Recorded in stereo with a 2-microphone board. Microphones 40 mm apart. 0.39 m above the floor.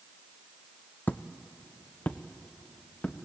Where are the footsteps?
55° left (ahead or behind), 0.8 m; by 3.2 s 45° left (ahead or behind), 1.9 m.